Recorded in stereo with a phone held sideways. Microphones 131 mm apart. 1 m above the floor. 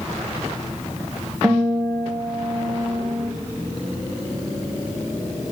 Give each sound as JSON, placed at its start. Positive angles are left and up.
{"t": 1.4, "sound": "a guitar", "side_deg": -10, "distance_m": 1.0}